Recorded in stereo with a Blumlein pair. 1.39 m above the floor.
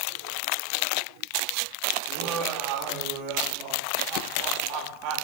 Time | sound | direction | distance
2.1 | laughter | 40° right | 1.2 m